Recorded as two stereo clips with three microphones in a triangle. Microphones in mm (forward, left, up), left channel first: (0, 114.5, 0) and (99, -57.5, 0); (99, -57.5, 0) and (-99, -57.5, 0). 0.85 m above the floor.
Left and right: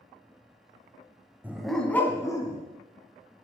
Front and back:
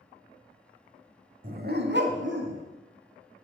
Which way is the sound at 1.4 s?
140° right.